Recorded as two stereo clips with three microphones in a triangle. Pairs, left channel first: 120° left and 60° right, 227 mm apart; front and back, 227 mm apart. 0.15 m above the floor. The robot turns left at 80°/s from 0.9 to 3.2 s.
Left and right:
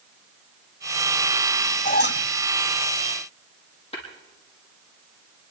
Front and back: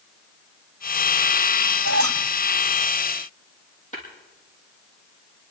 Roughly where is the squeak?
Behind.